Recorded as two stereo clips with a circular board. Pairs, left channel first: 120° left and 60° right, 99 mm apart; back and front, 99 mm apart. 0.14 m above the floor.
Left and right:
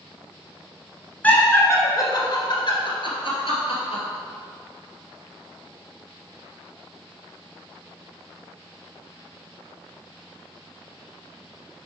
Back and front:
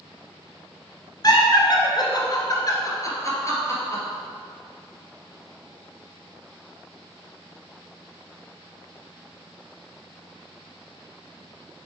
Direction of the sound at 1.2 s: 175° right.